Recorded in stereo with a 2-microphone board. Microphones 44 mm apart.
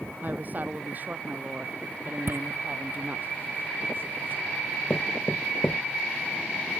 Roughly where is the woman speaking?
Right.